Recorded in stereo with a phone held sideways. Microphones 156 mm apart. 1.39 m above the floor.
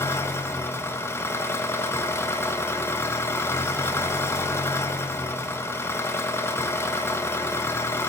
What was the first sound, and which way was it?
An engine running, 15° left (ahead or behind).